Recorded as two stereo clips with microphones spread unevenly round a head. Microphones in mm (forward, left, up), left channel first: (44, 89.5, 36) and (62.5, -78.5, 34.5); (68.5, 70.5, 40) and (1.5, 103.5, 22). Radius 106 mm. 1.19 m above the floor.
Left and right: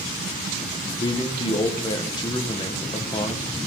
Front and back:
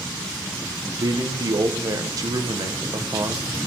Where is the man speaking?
160° left, 1.0 m.